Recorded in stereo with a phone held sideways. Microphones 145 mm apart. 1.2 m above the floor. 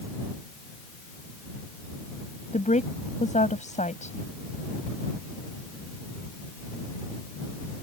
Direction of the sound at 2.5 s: 55° left (ahead or behind).